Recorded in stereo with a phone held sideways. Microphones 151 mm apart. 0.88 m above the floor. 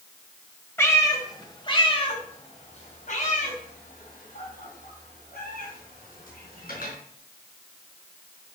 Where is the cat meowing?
15° left (ahead or behind), 2.5 m; by 6.9 s 90° left, 5 m.